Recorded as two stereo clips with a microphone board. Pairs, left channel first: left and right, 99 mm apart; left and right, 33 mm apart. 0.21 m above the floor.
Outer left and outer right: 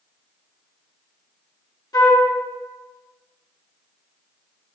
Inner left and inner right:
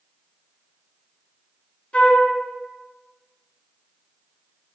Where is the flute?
40° left (ahead or behind), 2.5 m.